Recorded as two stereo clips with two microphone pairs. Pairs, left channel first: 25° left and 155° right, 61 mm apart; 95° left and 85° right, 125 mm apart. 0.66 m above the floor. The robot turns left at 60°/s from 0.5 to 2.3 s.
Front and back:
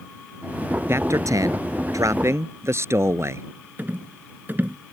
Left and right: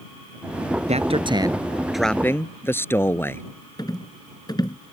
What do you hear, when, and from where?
0.9 s a man speaking: 105° right; by 3.4 s 170° left
3.8 s a rattle: 150° left